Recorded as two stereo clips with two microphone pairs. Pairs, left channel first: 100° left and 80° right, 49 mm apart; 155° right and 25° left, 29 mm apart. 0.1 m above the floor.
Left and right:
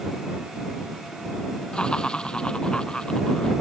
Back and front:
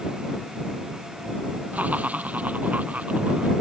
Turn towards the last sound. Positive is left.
turn(degrees=30)